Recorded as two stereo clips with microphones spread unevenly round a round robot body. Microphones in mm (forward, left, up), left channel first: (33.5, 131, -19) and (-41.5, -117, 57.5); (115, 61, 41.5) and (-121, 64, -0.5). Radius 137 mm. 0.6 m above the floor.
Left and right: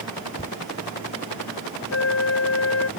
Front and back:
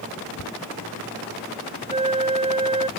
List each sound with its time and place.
0.4 s a thud: 5° left
1.9 s a flute: 115° left